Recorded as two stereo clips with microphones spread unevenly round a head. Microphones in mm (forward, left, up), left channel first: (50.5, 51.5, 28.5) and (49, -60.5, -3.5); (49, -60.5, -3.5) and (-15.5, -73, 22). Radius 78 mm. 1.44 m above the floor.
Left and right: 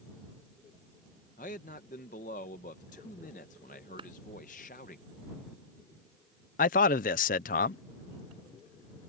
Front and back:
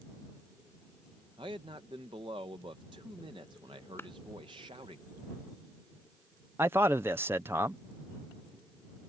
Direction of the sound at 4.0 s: 45° right.